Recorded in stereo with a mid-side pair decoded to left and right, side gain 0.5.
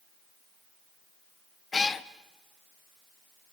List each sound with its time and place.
1.7 s a cat meowing: 25° left, 0.9 m